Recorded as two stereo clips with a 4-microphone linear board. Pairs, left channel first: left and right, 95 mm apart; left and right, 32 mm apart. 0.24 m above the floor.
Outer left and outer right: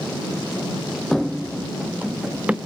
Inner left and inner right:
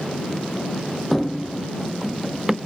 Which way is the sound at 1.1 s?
5° left (ahead or behind).